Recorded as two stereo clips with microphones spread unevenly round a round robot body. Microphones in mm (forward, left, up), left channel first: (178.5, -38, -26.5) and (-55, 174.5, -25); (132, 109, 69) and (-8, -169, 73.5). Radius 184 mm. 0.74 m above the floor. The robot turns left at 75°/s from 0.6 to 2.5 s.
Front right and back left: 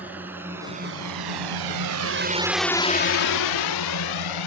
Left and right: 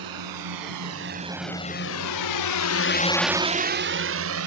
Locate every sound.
0.0 s a drone: 135° right; by 4.5 s 75° right